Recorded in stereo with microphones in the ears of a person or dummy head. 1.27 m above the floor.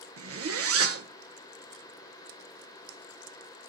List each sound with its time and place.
0.2 s a zipper: 65° right (ahead or behind), 1.4 m